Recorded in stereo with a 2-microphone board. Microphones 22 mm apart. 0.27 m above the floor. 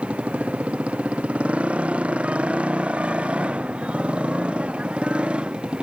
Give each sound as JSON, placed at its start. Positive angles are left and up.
{"t": 0.0, "sound": "a motorcycle", "side_deg": -75}